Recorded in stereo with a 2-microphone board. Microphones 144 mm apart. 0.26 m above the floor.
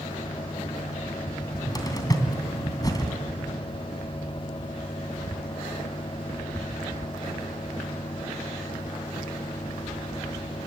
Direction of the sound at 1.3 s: 25° left (ahead or behind).